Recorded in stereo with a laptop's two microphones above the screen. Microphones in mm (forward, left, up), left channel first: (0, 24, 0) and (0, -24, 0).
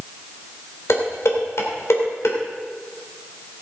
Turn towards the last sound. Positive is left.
turn(degrees=70)  # may be behind; listen again after turning